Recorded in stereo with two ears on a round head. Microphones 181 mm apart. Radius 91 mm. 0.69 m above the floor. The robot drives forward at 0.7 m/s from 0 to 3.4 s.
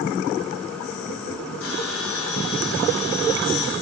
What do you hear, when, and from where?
1.6 s a bell: 75° left (ahead or behind), 5.5 m; by 3.7 s 85° left, 5.5 m